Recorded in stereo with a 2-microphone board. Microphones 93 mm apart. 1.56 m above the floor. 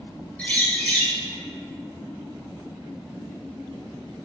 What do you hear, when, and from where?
0.4 s a bird: 15° left (ahead or behind), 1.0 m